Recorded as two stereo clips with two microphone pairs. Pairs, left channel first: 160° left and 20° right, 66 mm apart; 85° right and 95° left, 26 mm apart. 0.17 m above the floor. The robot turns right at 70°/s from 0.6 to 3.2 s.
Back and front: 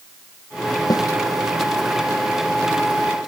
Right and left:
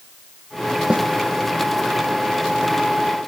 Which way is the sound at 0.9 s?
140° left.